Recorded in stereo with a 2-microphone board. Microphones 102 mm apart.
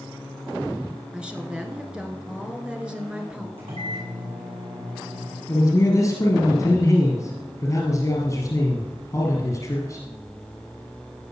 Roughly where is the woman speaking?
Centre.